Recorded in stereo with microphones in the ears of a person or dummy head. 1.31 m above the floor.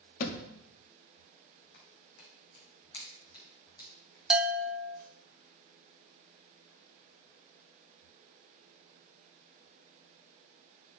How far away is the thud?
About 1.1 m.